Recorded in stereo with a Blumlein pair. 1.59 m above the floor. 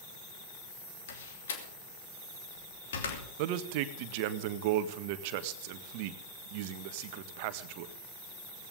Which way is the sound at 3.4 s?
45° right.